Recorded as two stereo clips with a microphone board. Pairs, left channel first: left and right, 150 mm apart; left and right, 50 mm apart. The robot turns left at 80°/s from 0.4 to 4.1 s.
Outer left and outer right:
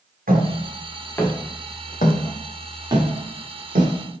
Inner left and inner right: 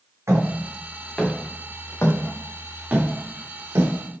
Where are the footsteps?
70° right (ahead or behind), 1.5 m; by 3.9 s 50° right (ahead or behind), 1.8 m.